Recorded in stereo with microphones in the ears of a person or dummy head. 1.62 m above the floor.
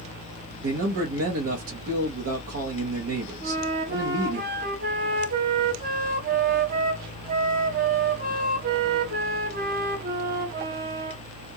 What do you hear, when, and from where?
0.6 s a man speaking: 70° right (ahead or behind), 0.8 m
3.4 s a flute: 50° right (ahead or behind), 0.7 m